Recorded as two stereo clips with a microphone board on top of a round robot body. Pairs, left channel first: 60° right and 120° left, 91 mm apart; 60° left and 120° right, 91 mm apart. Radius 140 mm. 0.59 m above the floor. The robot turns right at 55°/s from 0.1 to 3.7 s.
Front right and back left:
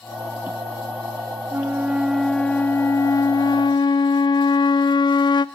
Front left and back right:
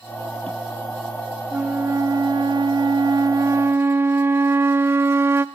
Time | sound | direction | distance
1.5 | a flute | 175° left | 0.5 m